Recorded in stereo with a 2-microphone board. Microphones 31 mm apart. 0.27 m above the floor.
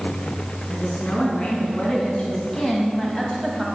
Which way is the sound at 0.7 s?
40° left (ahead or behind).